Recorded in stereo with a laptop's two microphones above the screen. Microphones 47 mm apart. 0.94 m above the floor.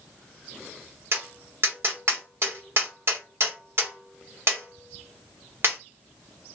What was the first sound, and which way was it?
Tapping, 60° right (ahead or behind).